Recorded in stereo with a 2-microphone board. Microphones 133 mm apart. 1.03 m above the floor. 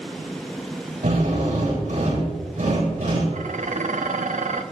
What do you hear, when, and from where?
1.0 s a drill: 75° right (ahead or behind), 8 m
3.3 s dishes clattering: 70° right (ahead or behind), 1.0 m